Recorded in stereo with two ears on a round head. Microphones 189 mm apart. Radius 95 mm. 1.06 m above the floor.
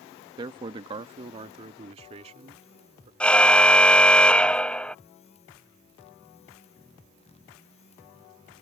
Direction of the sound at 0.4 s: 20° right (ahead or behind).